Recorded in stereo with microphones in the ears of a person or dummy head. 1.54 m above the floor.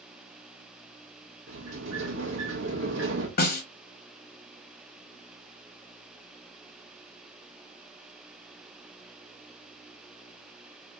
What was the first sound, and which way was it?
A sliding door, 60° right (ahead or behind).